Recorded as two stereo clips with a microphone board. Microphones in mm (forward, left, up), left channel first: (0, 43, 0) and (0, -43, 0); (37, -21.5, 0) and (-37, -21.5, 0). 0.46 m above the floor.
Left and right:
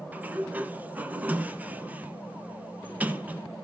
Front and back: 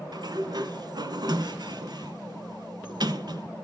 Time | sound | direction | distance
0.1 | a sliding door | 160° right | 0.9 m